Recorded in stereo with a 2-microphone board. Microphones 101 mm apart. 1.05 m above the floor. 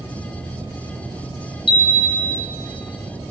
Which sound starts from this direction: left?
A chime, at 1.7 s.